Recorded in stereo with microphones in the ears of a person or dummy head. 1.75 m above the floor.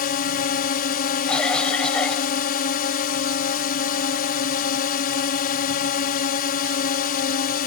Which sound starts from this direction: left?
A drone, at 0.0 s.